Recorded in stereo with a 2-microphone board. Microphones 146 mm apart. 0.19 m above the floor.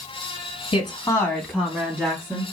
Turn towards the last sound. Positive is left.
turn(degrees=-35)  # may be behind; listen again after turning